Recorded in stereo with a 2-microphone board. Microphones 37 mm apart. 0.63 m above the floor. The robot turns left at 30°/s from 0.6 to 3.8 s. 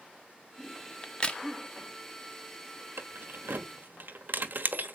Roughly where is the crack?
Left.